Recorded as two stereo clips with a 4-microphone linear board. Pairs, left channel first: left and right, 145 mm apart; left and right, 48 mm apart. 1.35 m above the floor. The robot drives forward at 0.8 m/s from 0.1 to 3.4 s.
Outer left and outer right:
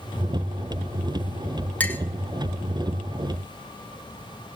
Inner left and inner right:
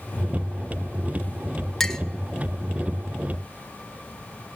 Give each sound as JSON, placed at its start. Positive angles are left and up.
{"t": 1.8, "sound": "a clink", "side_deg": 10, "distance_m": 0.7}